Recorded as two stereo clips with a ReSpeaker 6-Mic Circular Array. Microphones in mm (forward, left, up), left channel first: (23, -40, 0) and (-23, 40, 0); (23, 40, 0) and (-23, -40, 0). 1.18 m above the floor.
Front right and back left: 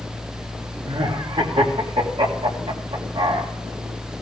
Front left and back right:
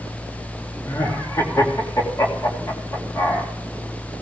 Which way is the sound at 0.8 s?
115° left.